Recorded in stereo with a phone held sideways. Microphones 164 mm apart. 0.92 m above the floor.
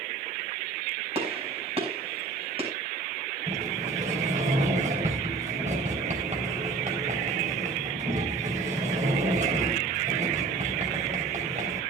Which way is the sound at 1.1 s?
35° right (ahead or behind).